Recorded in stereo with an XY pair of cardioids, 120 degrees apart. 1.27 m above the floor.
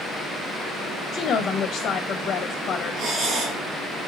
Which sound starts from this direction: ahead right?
Breathing, at 2.9 s.